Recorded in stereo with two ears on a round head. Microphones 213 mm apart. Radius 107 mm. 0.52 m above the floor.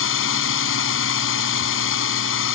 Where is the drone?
60° left (ahead or behind).